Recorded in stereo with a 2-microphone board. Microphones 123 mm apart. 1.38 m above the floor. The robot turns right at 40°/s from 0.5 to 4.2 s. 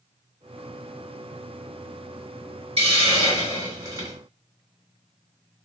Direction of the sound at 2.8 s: 85° right.